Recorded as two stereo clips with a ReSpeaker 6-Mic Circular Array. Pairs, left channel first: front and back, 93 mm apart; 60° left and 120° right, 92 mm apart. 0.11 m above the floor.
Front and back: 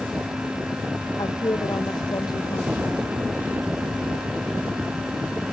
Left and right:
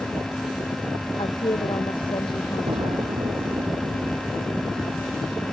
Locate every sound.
1.2 s a woman speaking: 40° left
2.7 s an explosion: 105° right